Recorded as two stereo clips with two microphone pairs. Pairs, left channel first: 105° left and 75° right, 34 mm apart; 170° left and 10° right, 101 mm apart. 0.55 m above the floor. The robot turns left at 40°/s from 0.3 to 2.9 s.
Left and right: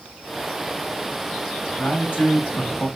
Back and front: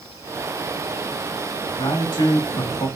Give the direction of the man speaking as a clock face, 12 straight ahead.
7 o'clock.